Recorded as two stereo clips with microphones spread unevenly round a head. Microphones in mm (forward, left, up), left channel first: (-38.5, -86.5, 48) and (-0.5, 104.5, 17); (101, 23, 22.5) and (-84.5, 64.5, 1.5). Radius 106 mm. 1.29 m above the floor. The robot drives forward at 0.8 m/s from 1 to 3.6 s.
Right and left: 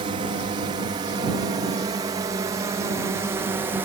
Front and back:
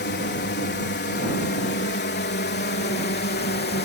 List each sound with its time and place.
0.0 s a drone: 20° left; by 3.9 s 10° left